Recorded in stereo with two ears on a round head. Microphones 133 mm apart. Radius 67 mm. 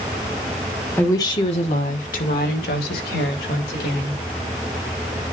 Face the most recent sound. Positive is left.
turn(degrees=80)